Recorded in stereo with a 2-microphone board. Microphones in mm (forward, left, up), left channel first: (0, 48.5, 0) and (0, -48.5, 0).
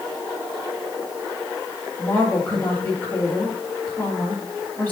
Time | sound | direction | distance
2.0 | a woman speaking | 20° left (ahead or behind) | 4 m